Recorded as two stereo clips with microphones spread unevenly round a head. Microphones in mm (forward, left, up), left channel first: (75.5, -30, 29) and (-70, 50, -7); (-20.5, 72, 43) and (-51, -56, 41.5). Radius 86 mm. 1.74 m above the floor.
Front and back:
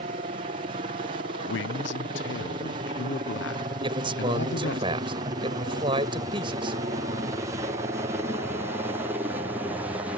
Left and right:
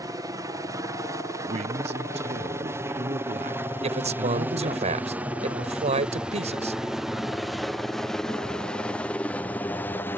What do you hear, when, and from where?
0.0 s a helicopter: 165° right; by 10.2 s 120° left
1.5 s a man speaking: 55° right
3.8 s a man speaking: 145° right